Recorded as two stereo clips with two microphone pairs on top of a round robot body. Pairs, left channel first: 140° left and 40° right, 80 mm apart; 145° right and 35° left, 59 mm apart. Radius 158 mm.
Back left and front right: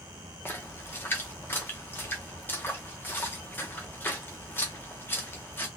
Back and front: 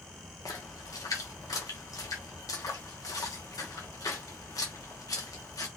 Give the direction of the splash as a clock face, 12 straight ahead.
5 o'clock.